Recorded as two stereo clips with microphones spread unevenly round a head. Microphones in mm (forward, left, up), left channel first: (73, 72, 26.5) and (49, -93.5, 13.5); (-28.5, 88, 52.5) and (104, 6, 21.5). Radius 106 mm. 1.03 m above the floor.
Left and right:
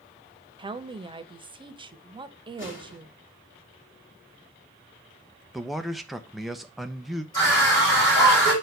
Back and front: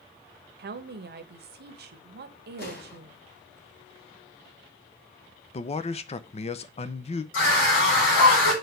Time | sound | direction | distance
0.6 | a woman speaking | 35° right | 0.9 m
2.6 | an explosion | 120° left | 3 m
5.5 | a man speaking | straight behind | 0.5 m
7.3 | a scream | 155° left | 4 m